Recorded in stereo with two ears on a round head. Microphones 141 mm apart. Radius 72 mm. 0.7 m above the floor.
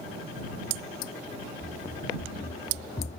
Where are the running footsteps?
60° left (ahead or behind); by 3.2 s 40° left (ahead or behind).